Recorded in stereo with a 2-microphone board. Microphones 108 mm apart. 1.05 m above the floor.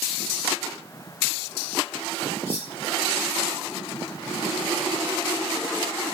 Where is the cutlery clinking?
80° left, 3 m.